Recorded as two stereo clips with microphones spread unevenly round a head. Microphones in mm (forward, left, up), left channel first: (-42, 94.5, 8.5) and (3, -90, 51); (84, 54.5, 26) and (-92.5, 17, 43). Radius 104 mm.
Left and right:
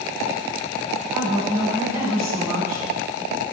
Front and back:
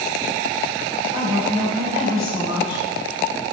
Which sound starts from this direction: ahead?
A woman speaking, at 1.1 s.